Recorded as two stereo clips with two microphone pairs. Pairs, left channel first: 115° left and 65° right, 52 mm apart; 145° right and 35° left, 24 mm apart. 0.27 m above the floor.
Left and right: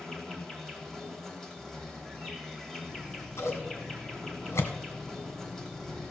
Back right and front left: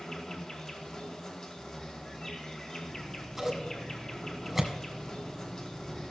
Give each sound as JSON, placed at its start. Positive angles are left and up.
{"t": 0.0, "sound": "an insect", "azimuth_deg": -170, "distance_m": 2.0}
{"t": 2.9, "sound": "scissors", "azimuth_deg": 120, "distance_m": 1.8}